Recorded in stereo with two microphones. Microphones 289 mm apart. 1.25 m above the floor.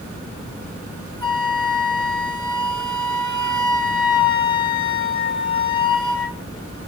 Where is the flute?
80° right, 2 m.